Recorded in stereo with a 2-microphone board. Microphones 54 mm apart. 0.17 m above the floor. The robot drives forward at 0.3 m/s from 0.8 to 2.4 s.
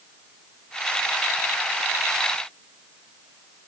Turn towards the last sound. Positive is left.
No sound to turn to.